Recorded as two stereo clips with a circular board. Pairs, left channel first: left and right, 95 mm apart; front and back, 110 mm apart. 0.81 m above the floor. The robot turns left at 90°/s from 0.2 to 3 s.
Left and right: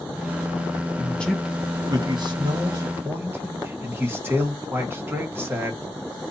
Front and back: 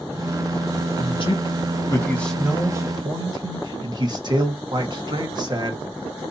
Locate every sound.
1.0 s a man speaking: 35° left, 1.5 m; by 5.8 s 150° right, 1.5 m